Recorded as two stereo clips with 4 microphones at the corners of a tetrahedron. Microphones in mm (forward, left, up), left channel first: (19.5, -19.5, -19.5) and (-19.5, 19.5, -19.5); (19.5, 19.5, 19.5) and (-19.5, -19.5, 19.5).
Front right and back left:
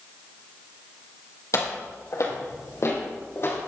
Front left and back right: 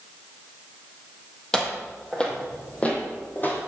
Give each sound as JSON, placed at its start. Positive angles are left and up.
{"t": 1.5, "sound": "footsteps", "azimuth_deg": -40, "distance_m": 3.5}